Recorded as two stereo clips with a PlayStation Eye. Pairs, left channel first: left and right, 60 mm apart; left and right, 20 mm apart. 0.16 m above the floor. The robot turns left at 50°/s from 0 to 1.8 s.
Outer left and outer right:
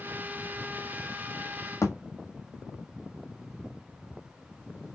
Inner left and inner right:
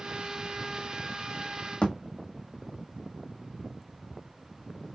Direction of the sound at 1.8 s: 55° left (ahead or behind).